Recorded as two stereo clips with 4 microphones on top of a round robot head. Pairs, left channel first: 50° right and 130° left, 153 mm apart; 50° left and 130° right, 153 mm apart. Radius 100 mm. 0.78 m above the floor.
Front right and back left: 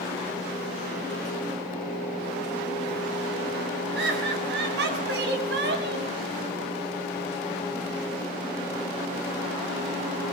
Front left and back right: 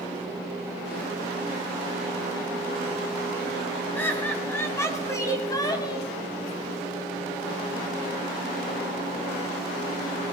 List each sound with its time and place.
4.0 s laughter: 130° left, 7 m; by 6.1 s 115° left, 6 m